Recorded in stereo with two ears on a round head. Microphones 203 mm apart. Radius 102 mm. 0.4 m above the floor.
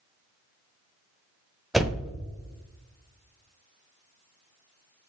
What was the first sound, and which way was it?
A door slam, centre (ahead or behind).